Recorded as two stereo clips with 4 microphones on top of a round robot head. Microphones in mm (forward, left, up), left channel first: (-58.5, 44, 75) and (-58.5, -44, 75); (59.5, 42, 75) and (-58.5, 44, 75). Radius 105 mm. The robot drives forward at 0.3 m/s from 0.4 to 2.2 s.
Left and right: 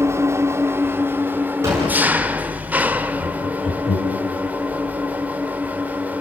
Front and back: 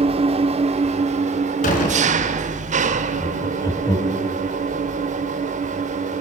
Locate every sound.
0.0 s an engine running: 150° right, 0.9 m; by 6.2 s 160° right, 1.3 m
1.6 s a door slam: 25° right, 4.5 m
3.2 s laughter: 60° left, 4.5 m